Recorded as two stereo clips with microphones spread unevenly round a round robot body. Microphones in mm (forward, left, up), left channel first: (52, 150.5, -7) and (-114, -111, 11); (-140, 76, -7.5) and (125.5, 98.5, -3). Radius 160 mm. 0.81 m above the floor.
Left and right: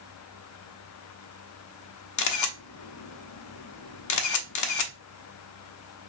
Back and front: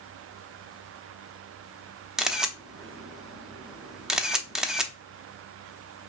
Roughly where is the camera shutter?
Left.